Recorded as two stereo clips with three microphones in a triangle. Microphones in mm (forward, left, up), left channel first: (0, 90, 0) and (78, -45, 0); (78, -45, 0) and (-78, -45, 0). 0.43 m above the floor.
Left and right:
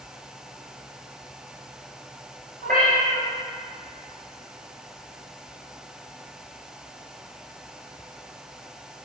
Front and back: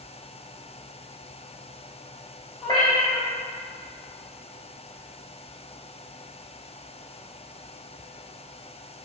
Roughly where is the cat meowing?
Ahead right.